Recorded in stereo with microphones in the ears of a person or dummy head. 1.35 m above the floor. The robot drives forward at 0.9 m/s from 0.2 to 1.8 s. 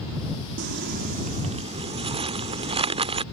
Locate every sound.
0.6 s crumpling: 55° right (ahead or behind); by 3.2 s 30° right (ahead or behind)